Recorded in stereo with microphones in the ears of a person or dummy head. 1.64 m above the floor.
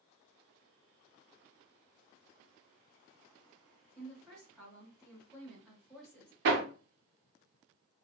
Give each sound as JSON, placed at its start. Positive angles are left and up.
{"t": 4.0, "sound": "a woman speaking", "side_deg": 0, "distance_m": 1.0}
{"t": 6.5, "sound": "hammering", "side_deg": -60, "distance_m": 0.7}